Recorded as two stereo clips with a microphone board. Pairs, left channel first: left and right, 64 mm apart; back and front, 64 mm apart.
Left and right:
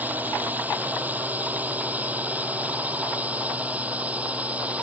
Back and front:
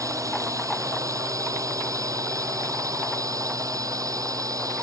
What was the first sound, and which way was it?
A drone, 25° right.